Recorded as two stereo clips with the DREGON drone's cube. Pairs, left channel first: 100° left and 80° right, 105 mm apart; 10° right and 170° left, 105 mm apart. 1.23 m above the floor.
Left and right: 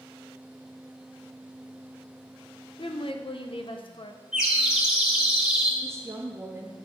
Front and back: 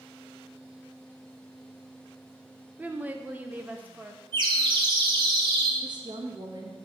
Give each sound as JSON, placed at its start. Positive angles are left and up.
{"t": 2.8, "sound": "a woman speaking", "azimuth_deg": 100, "distance_m": 0.8}
{"t": 4.3, "sound": "a bird", "azimuth_deg": -160, "distance_m": 1.5}
{"t": 5.8, "sound": "a woman speaking", "azimuth_deg": -145, "distance_m": 1.2}